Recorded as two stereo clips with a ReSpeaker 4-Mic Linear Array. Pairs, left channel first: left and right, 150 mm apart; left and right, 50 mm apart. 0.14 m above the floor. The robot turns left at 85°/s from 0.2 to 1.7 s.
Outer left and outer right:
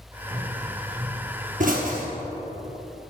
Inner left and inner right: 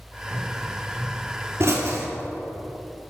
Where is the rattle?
I don't hear a rattle.